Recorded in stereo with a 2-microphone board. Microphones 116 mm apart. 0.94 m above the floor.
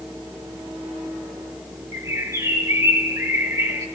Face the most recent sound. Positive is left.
turn(degrees=-25)  # may be behind; listen again after turning